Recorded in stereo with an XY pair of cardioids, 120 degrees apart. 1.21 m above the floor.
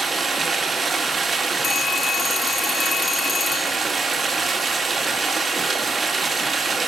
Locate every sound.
0.0 s running water: 30° right, 2 m
1.6 s a phone ringing: 30° left, 2.0 m